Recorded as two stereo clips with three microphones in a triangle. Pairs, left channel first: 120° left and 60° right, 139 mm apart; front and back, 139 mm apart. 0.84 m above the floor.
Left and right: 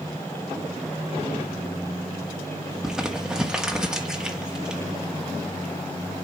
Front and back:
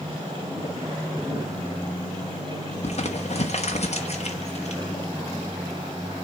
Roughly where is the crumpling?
Ahead left.